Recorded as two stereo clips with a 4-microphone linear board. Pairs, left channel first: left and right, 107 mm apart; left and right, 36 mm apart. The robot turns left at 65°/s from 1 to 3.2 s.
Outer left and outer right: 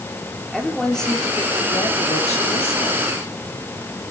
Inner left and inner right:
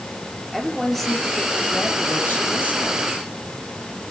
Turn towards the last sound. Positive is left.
turn(degrees=30)